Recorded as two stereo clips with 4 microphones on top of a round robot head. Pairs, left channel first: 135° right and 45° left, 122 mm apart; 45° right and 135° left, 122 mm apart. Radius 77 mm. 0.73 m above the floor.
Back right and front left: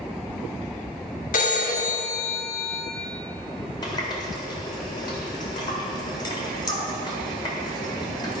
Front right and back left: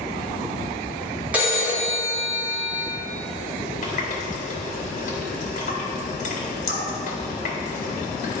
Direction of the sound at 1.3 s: 150° right.